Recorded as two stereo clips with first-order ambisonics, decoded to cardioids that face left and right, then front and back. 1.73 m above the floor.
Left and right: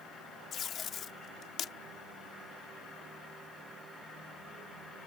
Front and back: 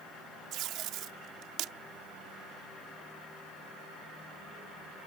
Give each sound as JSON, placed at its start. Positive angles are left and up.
{"t": 0.5, "sound": "tape being pulled", "azimuth_deg": 145}